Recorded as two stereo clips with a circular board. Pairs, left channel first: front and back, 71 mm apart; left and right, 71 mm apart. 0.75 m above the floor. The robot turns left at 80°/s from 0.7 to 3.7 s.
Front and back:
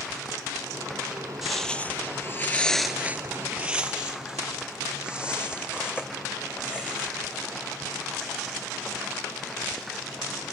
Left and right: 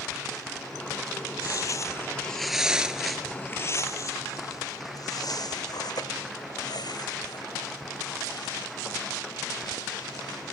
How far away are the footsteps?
About 1.4 m.